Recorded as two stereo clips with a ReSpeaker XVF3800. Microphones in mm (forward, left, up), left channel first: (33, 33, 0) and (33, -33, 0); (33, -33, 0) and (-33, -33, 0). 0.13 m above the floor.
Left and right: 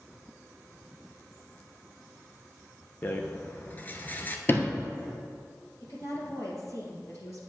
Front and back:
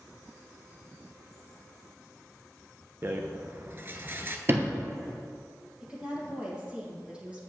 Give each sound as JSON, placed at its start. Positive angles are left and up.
{"t": 3.0, "sound": "a rattle", "azimuth_deg": 140, "distance_m": 0.7}
{"t": 4.5, "sound": "a sliding door", "azimuth_deg": 135, "distance_m": 0.9}
{"t": 5.8, "sound": "a woman speaking", "azimuth_deg": 110, "distance_m": 3.0}